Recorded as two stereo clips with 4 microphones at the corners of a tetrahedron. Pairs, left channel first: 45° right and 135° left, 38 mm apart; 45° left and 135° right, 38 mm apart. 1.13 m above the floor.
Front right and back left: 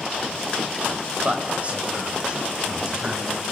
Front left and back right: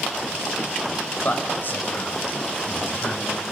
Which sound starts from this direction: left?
A man speaking, at 1.2 s.